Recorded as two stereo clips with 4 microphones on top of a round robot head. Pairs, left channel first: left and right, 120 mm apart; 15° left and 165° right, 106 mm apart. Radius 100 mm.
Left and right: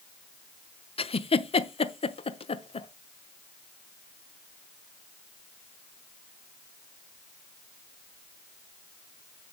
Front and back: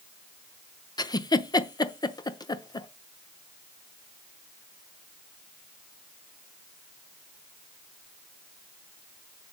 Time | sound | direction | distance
1.0 | a giggle | 60° left | 1.0 m